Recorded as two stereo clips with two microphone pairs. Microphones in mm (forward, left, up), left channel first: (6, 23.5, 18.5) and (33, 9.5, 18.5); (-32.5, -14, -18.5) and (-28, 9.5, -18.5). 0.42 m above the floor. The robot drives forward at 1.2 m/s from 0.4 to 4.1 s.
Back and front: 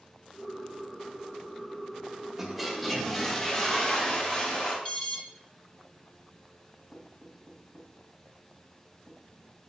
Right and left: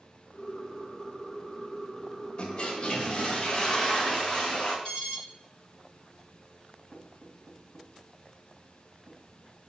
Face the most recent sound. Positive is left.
turn(degrees=-165)